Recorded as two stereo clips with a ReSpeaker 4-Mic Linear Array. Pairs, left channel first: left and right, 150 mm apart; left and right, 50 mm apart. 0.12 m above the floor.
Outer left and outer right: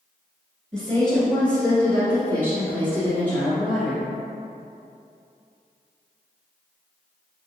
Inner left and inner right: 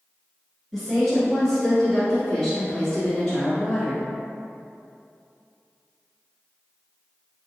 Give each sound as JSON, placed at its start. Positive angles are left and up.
{"t": 0.7, "sound": "a woman speaking", "side_deg": 5, "distance_m": 1.5}